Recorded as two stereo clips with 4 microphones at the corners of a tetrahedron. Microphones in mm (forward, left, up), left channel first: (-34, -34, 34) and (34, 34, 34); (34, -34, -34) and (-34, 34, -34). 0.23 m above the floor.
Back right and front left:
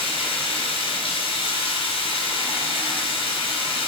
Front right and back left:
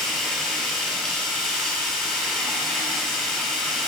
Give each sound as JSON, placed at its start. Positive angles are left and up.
{"t": 0.0, "sound": "running water", "azimuth_deg": -130, "distance_m": 2.5}